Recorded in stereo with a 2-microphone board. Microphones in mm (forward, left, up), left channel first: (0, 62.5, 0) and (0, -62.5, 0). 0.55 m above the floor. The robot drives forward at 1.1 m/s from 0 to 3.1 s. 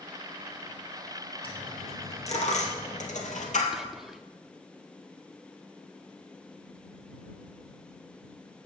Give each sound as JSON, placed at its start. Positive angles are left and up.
{"t": 1.4, "sound": "a dropped coin", "side_deg": 45, "distance_m": 2.5}
{"t": 3.7, "sound": "whispering", "side_deg": -5, "distance_m": 0.6}